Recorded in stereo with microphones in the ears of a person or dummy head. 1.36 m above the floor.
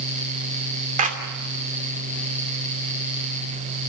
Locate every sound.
1.0 s a clap: 35° right (ahead or behind), 3 m